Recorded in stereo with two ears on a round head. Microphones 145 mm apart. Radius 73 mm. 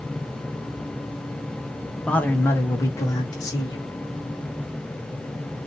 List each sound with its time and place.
2.1 s a man speaking: 5° left (ahead or behind), 0.7 m; by 3.9 s 25° left (ahead or behind), 1.8 m